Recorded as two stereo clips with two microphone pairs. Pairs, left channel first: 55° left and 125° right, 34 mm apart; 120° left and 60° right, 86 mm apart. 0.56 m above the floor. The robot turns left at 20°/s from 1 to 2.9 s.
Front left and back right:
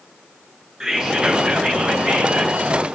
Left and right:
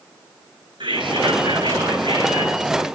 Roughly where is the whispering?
Ahead right.